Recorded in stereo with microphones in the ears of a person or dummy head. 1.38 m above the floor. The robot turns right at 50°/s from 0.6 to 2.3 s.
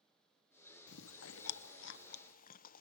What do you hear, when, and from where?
0.9 s chewing: 60° left (ahead or behind), 0.6 m; by 2.8 s 45° left (ahead or behind), 0.6 m